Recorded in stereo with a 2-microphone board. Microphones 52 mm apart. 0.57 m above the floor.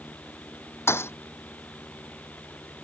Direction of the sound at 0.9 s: 60° left (ahead or behind).